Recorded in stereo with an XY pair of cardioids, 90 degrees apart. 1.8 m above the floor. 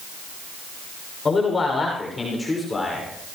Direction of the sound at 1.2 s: 35° left.